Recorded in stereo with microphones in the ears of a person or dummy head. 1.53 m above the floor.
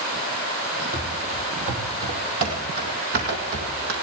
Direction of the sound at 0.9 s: 25° right (ahead or behind).